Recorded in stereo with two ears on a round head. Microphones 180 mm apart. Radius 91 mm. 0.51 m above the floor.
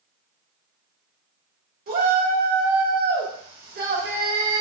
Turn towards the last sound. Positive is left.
turn(degrees=-45)  # may be behind; listen again after turning